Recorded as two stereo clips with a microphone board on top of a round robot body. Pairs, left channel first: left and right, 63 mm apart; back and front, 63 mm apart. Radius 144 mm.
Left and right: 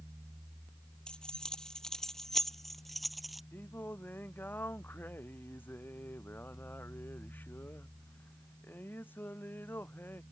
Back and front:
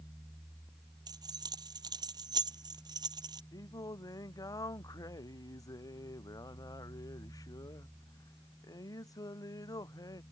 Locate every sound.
1.1 s keys jangling: 10° left; by 3.4 s 5° right
3.5 s singing: 150° left